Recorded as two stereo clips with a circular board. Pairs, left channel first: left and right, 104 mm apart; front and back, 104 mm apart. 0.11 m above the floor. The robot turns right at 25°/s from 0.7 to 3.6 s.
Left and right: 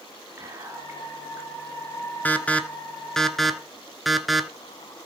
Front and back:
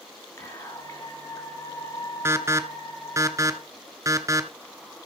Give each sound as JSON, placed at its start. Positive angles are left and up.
{"t": 0.4, "sound": "whispering", "azimuth_deg": -50, "distance_m": 2.0}
{"t": 2.2, "sound": "an alarm", "azimuth_deg": 145, "distance_m": 1.1}